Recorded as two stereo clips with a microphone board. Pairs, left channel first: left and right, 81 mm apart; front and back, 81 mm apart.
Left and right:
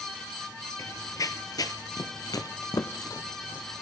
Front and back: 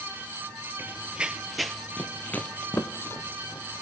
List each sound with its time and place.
0.8 s running footsteps: 120° left, 0.9 m; by 3.8 s 45° left, 1.7 m